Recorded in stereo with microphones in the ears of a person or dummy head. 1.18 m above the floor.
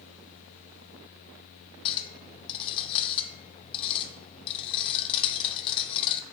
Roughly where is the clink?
Left.